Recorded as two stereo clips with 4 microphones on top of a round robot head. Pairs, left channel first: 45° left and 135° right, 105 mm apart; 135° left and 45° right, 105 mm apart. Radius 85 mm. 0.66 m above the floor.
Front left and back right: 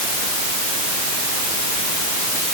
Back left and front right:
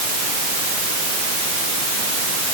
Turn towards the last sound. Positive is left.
No sound to turn to.